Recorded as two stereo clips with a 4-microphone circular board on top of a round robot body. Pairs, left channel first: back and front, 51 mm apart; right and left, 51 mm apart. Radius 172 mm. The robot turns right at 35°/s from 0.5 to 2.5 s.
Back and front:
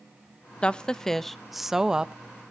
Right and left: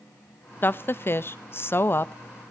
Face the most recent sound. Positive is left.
turn(degrees=-55)